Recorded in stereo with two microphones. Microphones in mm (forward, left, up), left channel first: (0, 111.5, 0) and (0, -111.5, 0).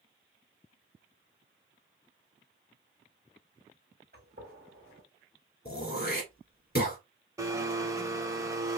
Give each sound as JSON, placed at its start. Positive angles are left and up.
{"t": 4.1, "sound": "a gunshot", "side_deg": -50, "distance_m": 2.0}
{"t": 5.7, "sound": "throat clearing", "side_deg": 45, "distance_m": 1.9}
{"t": 7.4, "sound": "a blender", "side_deg": -15, "distance_m": 0.7}